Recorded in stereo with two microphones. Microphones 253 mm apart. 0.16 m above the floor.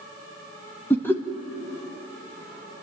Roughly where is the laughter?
Centre.